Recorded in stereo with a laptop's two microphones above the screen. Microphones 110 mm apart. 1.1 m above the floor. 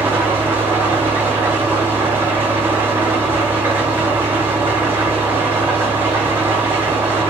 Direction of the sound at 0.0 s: 20° right (ahead or behind).